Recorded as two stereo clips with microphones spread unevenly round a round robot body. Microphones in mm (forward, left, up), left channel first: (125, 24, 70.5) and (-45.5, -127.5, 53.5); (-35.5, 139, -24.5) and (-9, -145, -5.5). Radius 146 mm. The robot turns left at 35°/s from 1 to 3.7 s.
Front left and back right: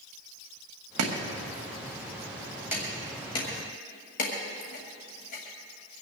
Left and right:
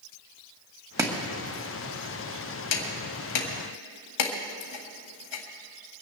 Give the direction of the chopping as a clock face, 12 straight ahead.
5 o'clock.